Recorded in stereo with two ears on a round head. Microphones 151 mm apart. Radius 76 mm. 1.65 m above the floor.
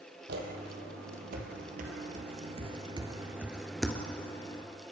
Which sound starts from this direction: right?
Footsteps, at 0.3 s.